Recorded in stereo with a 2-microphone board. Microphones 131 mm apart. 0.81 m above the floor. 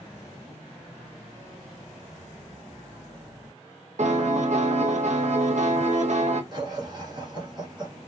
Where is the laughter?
30° right (ahead or behind), 1.0 m.